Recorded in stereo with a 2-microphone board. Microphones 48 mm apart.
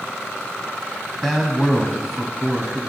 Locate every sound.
1.2 s a man speaking: centre (ahead or behind), 1.2 m